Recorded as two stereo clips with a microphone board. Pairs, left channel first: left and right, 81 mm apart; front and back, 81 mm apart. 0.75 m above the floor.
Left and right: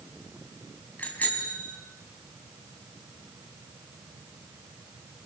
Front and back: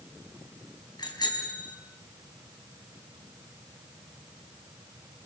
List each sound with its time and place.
1.0 s a bicycle bell: 20° left, 4 m